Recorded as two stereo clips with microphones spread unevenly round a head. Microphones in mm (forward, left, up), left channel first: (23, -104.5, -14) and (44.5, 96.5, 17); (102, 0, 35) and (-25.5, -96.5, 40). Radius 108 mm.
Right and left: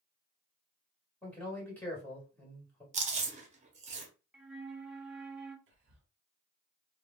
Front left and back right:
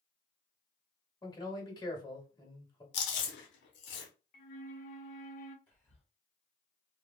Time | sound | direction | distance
1.2 | a man speaking | 20° right | 1.5 m
2.9 | chewing | 35° left | 0.7 m
4.3 | a flute | straight ahead | 0.6 m
5.7 | whispering | 115° left | 1.2 m